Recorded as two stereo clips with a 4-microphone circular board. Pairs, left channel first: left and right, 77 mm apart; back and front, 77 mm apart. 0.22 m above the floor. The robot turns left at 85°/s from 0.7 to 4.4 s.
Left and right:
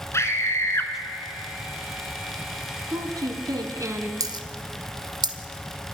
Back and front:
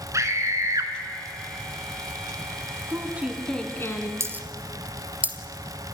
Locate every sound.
0.1 s a scream: 40° left, 2.5 m; by 0.9 s 25° left, 2.5 m
2.9 s a woman speaking: 45° right, 2.5 m; by 4.1 s 150° right, 2.5 m
4.2 s a dropped coin: 50° right, 1.1 m; by 5.4 s 70° right, 1.1 m